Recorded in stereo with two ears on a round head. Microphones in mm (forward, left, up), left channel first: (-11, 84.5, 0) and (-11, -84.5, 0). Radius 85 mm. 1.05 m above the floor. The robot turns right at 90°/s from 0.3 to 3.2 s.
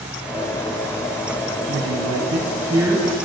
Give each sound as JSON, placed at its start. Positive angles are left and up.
{"t": 1.7, "sound": "a woman speaking", "azimuth_deg": -115, "distance_m": 1.1}